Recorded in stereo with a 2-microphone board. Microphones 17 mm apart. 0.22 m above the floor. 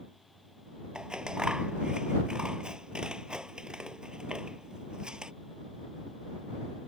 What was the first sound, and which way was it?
Scissors, 55° right (ahead or behind).